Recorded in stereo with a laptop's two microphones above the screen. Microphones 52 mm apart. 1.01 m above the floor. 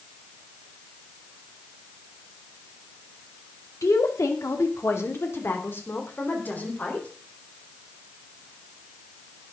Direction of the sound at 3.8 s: 80° left.